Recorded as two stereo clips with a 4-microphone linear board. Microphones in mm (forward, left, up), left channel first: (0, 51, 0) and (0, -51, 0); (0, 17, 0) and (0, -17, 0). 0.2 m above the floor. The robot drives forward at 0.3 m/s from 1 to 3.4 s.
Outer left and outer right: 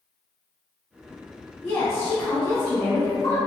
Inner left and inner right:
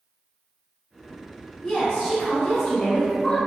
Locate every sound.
1.6 s a woman speaking: 25° left (ahead or behind), 1.1 m